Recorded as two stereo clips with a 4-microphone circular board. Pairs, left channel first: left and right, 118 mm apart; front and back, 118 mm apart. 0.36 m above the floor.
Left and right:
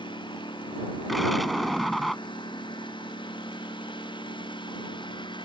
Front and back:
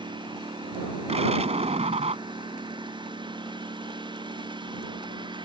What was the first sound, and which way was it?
A lawn mower, 135° left.